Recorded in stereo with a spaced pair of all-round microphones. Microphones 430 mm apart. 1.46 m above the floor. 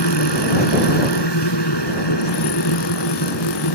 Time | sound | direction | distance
0.0 | a machine running | 65° left (ahead or behind) | ?